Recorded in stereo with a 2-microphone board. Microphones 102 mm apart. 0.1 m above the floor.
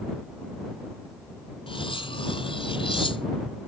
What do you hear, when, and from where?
1.7 s cutlery clinking: 55° left (ahead or behind)